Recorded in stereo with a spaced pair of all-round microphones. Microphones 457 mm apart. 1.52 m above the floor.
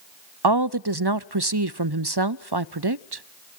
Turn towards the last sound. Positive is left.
turn(degrees=-60)  # may be behind; listen again after turning